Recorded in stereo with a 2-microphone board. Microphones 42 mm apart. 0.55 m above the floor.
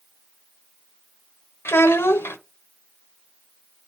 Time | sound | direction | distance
1.6 | a child speaking | 75° left (ahead or behind) | 1.1 m